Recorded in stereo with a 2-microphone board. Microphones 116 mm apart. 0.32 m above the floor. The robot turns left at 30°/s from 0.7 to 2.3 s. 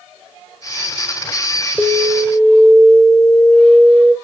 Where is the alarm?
Centre (ahead or behind), 1.9 m; by 4.2 s 5° left (ahead or behind), 1.9 m.